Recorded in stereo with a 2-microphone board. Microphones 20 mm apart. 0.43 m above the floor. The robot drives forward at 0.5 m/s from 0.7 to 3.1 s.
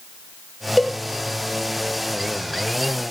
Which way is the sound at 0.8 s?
Centre (ahead or behind).